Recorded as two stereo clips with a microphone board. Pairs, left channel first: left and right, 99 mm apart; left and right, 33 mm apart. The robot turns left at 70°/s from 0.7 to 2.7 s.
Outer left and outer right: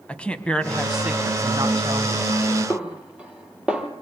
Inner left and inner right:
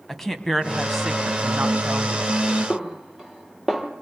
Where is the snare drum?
10° right (ahead or behind), 3.5 m.